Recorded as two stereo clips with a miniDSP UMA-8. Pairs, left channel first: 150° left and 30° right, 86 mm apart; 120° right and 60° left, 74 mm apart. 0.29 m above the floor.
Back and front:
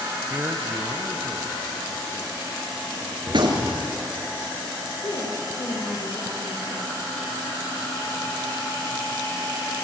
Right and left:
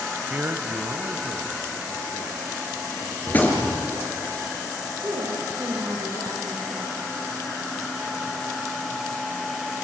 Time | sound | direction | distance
0.3 | a man speaking | 5° left | 1.1 m
3.3 | a gunshot | 55° right | 4 m
5.0 | a woman speaking | 110° left | 7 m